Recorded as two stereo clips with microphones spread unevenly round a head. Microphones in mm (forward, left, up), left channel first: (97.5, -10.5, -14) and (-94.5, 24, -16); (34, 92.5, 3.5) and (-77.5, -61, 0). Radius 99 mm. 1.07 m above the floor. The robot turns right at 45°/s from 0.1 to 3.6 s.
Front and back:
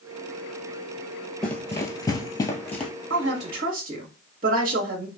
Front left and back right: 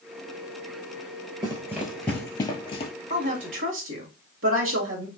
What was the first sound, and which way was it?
Running footsteps, 90° right.